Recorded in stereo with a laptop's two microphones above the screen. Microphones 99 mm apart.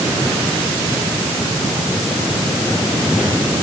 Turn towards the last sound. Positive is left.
No sound to turn to.